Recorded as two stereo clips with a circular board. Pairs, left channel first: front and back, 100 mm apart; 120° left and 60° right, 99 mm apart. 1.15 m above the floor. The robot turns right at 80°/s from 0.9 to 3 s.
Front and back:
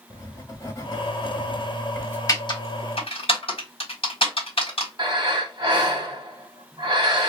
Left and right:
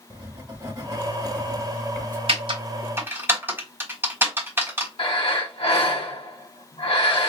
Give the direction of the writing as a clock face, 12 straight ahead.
1 o'clock.